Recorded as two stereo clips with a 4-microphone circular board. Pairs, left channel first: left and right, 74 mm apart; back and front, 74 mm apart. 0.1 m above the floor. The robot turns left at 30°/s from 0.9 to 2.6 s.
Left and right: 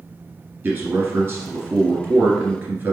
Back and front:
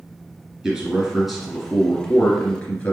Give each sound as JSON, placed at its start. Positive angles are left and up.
{"t": 0.6, "sound": "a man speaking", "azimuth_deg": -70, "distance_m": 1.5}